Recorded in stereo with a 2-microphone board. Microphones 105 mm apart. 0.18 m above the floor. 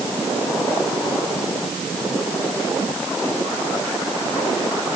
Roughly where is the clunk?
I don't hear a clunk.